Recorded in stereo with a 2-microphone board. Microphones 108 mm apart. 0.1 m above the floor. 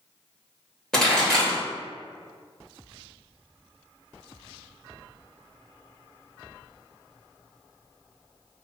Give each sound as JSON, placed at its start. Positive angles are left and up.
{"t": 0.9, "sound": "a pop", "side_deg": 5, "distance_m": 2.0}